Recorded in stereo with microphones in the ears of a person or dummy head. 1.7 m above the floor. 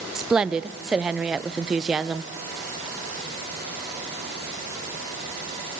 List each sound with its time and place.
0.1 s a woman speaking: 5° right (ahead or behind), 0.6 m